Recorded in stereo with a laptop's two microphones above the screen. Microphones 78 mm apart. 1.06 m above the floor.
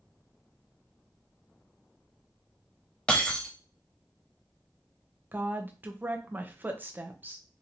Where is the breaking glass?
15° left (ahead or behind), 1.0 m.